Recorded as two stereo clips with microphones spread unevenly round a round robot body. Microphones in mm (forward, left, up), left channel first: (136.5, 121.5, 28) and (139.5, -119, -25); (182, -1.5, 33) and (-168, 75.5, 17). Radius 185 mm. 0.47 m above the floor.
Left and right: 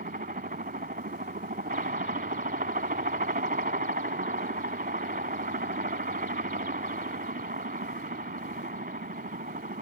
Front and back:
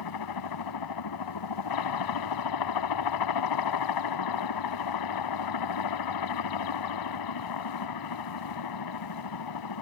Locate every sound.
0.0 s a helicopter: 40° right